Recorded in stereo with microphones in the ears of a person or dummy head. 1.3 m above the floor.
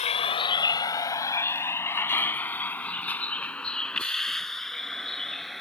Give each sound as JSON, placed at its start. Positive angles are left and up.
{"t": 0.0, "sound": "a vehicle", "side_deg": 30}